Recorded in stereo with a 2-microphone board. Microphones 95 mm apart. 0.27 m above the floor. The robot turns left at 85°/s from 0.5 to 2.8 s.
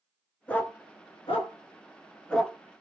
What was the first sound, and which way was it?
A dog barking, 15° left (ahead or behind).